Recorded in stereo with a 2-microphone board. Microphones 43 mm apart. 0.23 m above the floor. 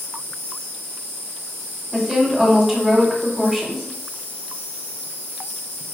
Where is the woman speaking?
5° right (ahead or behind), 0.9 m.